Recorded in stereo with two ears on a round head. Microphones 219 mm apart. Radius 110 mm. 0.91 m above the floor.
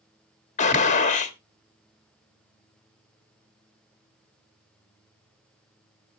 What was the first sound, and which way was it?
A gunshot, 30° left (ahead or behind).